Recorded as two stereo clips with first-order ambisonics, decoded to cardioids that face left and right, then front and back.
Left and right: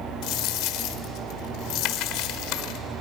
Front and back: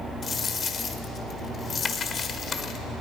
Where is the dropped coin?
65° left, 1.4 m.